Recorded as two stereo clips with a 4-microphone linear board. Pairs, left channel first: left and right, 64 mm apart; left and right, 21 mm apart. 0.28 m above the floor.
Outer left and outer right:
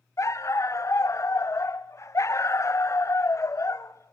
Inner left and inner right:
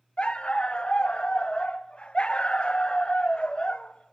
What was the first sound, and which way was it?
A dog barking, 50° left (ahead or behind).